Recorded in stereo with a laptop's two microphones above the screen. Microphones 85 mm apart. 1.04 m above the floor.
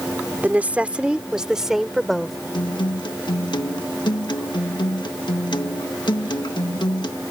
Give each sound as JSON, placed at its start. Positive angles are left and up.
{"t": 0.4, "sound": "a woman speaking", "side_deg": -20}
{"t": 2.5, "sound": "a guitar", "side_deg": 65}